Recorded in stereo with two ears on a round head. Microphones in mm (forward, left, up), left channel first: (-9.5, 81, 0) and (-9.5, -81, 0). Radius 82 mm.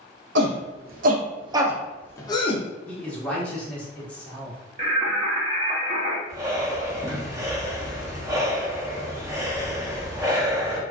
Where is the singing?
35° right (ahead or behind), 0.7 m.